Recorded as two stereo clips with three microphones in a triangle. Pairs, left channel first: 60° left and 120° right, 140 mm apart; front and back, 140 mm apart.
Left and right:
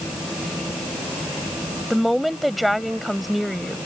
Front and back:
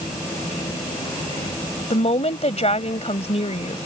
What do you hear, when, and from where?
1.9 s a woman speaking: 30° right